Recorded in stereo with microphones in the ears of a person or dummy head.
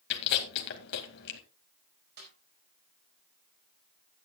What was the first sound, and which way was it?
Chewing, 60° left (ahead or behind).